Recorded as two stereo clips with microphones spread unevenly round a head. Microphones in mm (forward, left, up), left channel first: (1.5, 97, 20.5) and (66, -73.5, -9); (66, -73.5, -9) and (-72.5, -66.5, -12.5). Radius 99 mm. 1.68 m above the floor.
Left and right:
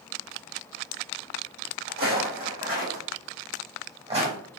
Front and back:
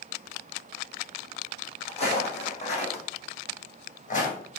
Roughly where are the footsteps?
Ahead right.